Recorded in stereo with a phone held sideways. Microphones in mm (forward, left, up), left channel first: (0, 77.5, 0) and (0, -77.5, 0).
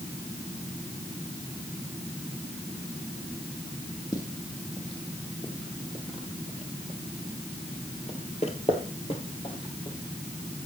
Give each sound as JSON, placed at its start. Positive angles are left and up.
{"t": 4.1, "sound": "footsteps", "side_deg": 30, "distance_m": 3.5}